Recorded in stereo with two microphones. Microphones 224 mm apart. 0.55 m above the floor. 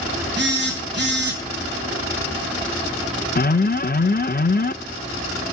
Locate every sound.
0.4 s a phone buzzing: 50° right (ahead or behind), 4 m
3.4 s an alarm: 40° left (ahead or behind), 0.6 m